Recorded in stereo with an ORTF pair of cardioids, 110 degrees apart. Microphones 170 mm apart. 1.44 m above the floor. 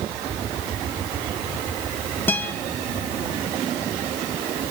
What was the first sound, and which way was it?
A guitar, 15° left.